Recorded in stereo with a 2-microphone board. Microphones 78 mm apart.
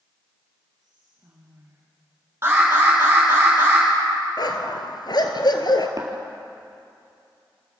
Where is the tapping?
50° right (ahead or behind), 3 m.